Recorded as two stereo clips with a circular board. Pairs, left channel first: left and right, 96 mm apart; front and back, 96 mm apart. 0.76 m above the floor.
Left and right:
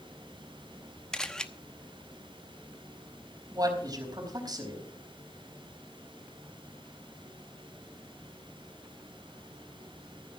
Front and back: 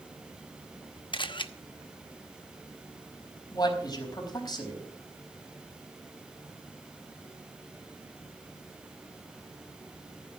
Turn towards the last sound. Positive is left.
turn(degrees=-45)